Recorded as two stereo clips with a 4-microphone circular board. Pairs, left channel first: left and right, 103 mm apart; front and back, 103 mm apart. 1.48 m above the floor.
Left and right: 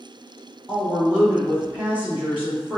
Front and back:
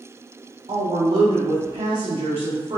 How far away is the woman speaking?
About 0.7 m.